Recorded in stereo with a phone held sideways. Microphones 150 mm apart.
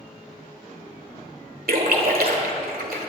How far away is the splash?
About 2 m.